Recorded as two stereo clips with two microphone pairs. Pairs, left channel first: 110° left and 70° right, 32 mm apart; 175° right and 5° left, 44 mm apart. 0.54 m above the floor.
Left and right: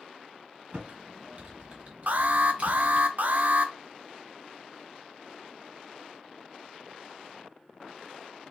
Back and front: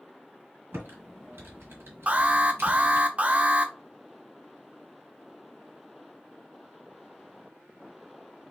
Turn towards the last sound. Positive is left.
turn(degrees=-50)